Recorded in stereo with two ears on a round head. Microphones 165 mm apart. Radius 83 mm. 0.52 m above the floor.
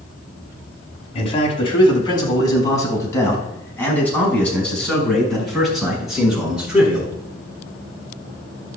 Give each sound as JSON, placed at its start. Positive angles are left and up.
{"t": 1.1, "sound": "a man speaking", "side_deg": 35, "distance_m": 4.0}